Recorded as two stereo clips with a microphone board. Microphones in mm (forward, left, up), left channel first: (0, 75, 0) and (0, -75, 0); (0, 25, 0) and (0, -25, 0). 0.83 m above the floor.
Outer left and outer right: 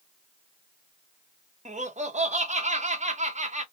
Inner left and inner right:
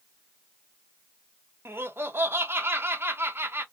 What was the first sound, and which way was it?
Laughter, 50° right (ahead or behind).